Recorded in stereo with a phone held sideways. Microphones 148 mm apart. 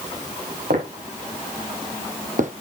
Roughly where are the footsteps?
Right.